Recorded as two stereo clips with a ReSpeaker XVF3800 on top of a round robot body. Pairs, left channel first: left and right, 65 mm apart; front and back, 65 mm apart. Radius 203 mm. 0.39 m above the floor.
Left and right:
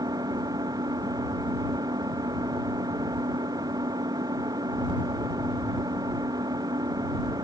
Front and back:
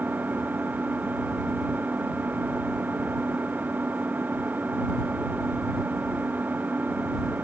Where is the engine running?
115° right.